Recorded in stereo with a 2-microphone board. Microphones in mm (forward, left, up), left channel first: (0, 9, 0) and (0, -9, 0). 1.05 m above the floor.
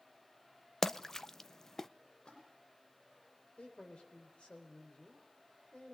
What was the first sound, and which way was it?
A splash, 25° left (ahead or behind).